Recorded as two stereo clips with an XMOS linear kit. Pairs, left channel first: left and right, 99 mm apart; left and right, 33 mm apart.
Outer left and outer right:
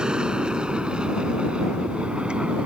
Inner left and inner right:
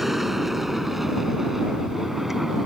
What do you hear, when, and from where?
0.0 s an aircraft: 10° right (ahead or behind)